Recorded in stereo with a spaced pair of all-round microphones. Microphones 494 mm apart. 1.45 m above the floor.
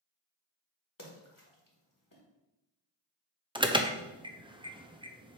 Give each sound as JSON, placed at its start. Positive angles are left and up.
{"t": 1.0, "sound": "a splash", "side_deg": 40, "distance_m": 1.7}
{"t": 3.5, "sound": "an alarm", "side_deg": -10, "distance_m": 0.6}